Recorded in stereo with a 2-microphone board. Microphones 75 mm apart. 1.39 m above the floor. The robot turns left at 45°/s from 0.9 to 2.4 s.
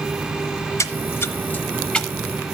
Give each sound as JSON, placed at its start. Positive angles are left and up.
{"t": 0.8, "sound": "a splash", "side_deg": 40, "distance_m": 0.8}